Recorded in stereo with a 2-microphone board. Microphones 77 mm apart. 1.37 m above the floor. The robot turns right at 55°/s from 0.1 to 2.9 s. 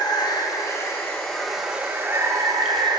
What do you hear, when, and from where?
0.0 s running water: 105° left, 0.8 m; by 3.0 s 100° right, 0.8 m